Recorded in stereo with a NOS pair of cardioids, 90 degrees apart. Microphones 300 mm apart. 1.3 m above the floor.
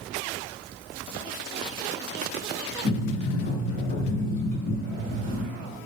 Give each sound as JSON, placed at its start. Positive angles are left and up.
{"t": 2.8, "sound": "a sliding door", "azimuth_deg": 40, "distance_m": 1.4}